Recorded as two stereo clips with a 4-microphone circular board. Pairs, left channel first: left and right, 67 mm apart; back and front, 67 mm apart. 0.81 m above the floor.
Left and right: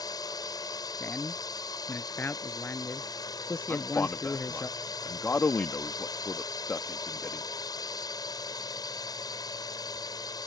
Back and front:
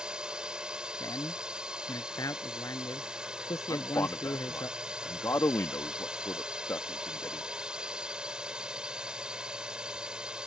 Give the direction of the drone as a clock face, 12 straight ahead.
9 o'clock.